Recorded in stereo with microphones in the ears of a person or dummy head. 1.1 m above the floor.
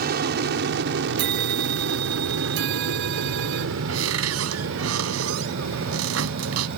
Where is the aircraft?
50° right (ahead or behind); by 6.8 s 65° right (ahead or behind).